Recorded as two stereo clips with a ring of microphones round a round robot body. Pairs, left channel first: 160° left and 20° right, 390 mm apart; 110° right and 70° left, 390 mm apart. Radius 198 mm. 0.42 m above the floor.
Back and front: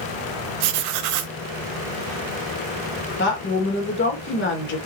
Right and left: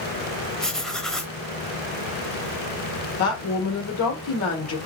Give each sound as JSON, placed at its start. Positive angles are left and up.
{"t": 0.6, "sound": "writing", "azimuth_deg": -25, "distance_m": 0.8}
{"t": 3.2, "sound": "a woman speaking", "azimuth_deg": -150, "distance_m": 1.6}